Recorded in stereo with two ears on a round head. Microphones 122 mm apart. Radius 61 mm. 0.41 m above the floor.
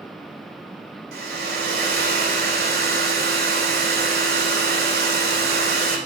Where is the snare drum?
No snare drum in this recording.